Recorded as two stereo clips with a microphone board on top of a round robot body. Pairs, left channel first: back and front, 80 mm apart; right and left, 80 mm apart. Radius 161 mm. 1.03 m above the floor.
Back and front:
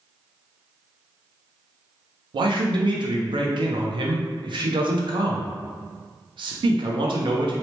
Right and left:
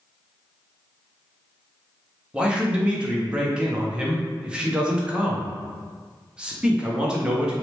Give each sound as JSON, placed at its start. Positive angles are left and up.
{"t": 2.3, "sound": "a man speaking", "azimuth_deg": 15, "distance_m": 0.5}